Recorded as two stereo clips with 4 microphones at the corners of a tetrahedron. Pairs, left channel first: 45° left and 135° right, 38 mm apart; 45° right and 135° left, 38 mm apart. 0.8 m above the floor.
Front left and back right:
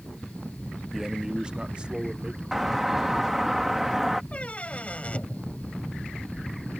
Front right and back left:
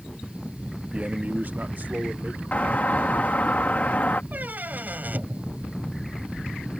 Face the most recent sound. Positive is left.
turn(degrees=100)